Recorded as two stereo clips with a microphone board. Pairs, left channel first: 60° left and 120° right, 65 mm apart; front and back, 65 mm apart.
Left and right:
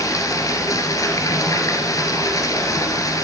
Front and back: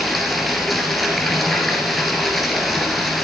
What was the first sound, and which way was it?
Running water, 90° left.